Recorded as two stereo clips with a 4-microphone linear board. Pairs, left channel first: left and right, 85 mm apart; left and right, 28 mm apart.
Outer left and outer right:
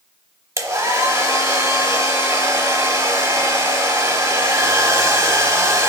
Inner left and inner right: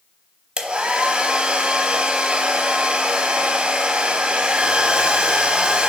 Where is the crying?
I don't hear crying.